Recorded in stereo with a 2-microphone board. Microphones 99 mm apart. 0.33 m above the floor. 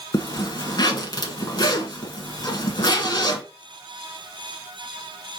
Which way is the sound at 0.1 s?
45° left (ahead or behind).